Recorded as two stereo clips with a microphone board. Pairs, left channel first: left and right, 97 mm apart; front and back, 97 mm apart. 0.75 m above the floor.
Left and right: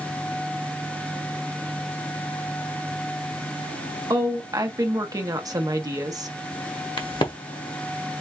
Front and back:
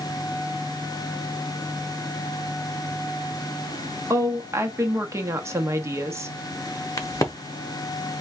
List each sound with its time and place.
4.1 s a woman speaking: 130° right, 0.8 m
7.0 s a crack: 55° left, 0.9 m